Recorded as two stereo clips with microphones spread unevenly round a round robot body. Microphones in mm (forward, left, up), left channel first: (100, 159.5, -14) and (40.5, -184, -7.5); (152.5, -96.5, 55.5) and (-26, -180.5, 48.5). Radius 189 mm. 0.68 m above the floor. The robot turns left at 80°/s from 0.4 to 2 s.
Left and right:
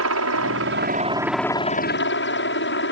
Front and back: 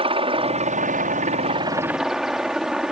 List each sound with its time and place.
0.0 s a helicopter: 115° right; by 2.9 s 120° left